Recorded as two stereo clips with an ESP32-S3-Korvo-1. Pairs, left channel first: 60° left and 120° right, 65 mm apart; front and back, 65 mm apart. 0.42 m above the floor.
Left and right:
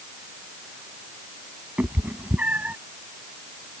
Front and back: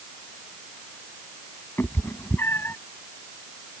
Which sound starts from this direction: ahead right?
A cat meowing, at 1.8 s.